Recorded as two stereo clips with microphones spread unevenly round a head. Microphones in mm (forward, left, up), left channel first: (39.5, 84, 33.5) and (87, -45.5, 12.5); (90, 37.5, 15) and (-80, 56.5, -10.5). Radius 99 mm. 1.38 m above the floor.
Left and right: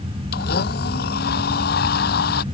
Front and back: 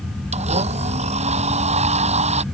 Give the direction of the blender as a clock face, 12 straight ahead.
8 o'clock.